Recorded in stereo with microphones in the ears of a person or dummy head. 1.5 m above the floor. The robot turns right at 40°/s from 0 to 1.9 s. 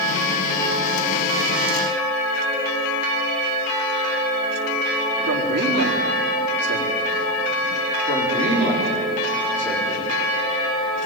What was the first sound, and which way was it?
A man speaking, 90° right.